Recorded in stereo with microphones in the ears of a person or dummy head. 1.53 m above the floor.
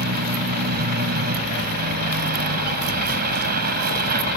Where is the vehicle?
50° right (ahead or behind).